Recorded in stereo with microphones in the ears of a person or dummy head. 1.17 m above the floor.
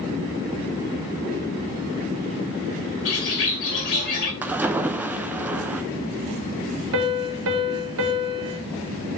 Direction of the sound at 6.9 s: 70° right (ahead or behind).